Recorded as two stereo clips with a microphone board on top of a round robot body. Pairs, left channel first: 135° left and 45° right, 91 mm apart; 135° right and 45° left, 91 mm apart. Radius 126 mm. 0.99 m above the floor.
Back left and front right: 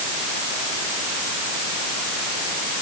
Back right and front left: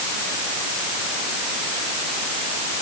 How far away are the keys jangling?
No keys jangling in this recording.